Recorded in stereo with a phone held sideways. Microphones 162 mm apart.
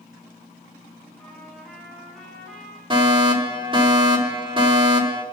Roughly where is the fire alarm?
Right.